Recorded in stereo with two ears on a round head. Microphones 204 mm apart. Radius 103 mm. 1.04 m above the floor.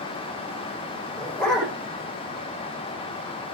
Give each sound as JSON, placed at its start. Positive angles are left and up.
{"t": 1.2, "sound": "a dog barking", "side_deg": 0, "distance_m": 10.0}